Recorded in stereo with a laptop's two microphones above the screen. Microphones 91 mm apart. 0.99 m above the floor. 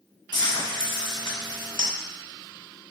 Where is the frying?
50° left (ahead or behind), 1.1 m.